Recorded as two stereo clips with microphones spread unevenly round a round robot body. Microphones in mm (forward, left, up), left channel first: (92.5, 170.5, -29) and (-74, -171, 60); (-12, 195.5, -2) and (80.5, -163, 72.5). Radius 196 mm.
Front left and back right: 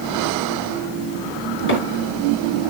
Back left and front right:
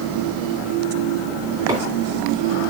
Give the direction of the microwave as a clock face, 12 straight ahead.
12 o'clock.